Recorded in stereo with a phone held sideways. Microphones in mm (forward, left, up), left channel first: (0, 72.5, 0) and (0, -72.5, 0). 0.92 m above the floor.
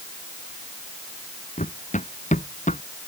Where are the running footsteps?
60° left (ahead or behind); by 2.8 s 55° left (ahead or behind).